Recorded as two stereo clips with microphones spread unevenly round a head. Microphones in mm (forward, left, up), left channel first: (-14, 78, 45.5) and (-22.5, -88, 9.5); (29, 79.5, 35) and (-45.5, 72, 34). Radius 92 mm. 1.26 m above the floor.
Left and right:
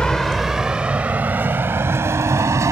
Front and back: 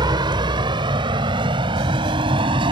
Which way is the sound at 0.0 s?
170° left.